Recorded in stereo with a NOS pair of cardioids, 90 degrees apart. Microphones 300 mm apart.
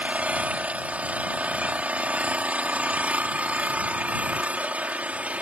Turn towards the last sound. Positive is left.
turn(degrees=-5)